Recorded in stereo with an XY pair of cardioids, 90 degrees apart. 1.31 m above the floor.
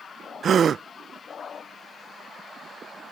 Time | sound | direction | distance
0.4 | a gasp | 55° right | ?